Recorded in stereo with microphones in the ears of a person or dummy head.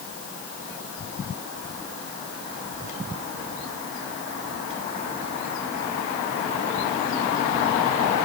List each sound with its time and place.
Only background noise.